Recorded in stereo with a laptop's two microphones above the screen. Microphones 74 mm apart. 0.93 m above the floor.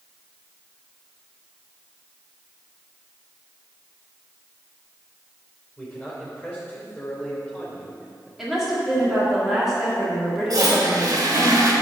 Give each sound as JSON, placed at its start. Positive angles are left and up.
{"t": 5.8, "sound": "a man speaking", "side_deg": 0, "distance_m": 3.5}
{"t": 8.4, "sound": "a woman speaking", "side_deg": 0, "distance_m": 2.0}
{"t": 10.5, "sound": "a toilet flushing", "side_deg": -55, "distance_m": 1.6}